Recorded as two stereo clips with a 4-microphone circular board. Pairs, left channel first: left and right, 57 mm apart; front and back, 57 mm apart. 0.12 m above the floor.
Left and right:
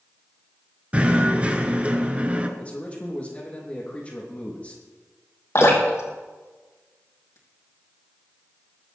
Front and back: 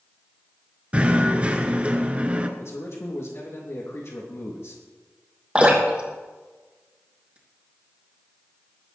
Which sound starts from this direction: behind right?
Knocking, at 0.9 s.